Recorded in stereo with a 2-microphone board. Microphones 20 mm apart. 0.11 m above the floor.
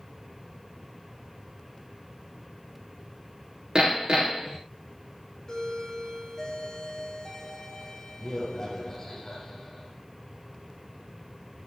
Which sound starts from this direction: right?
Hammering, at 3.8 s.